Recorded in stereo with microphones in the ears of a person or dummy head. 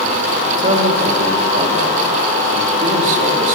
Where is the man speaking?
45° right (ahead or behind), 3.5 m.